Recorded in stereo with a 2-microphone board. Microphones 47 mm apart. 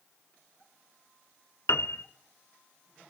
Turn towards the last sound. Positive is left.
turn(degrees=80)